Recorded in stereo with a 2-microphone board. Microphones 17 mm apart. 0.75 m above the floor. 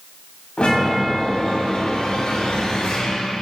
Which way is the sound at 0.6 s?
75° left (ahead or behind).